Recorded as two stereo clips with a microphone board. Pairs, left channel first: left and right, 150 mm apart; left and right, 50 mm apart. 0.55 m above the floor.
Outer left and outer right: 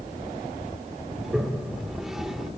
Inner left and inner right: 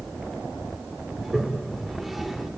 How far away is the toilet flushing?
About 2.0 m.